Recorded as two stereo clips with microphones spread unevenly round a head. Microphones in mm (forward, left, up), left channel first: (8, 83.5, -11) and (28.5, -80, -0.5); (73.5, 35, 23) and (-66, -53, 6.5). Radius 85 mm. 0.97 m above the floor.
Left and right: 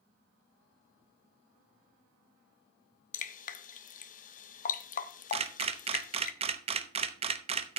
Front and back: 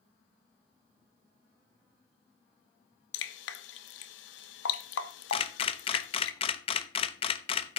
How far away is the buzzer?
I don't hear a buzzer.